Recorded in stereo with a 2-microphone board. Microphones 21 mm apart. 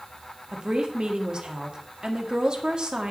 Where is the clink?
No clink in this recording.